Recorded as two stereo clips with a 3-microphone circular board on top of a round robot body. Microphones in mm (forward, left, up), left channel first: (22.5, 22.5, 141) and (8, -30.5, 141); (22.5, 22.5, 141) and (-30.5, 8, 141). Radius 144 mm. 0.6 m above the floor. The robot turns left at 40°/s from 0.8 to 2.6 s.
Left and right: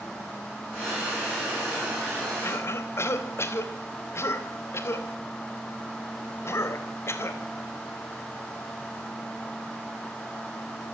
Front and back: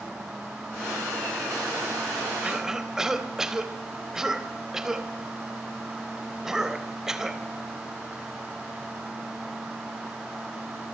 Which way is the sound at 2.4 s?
120° left.